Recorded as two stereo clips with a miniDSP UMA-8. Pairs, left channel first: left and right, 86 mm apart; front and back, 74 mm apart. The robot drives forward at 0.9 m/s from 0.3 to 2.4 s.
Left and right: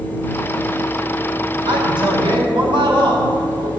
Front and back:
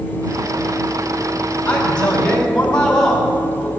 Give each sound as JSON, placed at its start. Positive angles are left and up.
{"t": 1.6, "sound": "a man speaking", "azimuth_deg": -75, "distance_m": 5.5}